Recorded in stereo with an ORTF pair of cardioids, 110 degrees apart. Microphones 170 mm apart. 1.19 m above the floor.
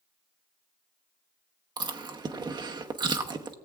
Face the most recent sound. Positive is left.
turn(degrees=-25)